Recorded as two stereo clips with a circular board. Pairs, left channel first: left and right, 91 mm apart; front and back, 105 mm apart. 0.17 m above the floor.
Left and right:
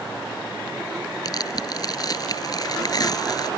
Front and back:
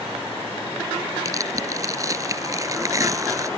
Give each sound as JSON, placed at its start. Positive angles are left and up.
{"t": 1.2, "sound": "tearing paper", "azimuth_deg": 125}